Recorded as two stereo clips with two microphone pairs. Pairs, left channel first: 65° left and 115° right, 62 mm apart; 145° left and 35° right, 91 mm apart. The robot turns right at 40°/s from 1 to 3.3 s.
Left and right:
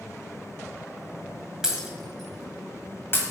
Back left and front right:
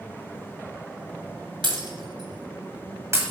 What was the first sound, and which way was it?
Breaking glass, 40° right.